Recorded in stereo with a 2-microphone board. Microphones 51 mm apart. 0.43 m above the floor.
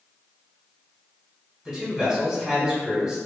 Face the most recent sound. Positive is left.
turn(degrees=-5)  # may be behind; listen again after turning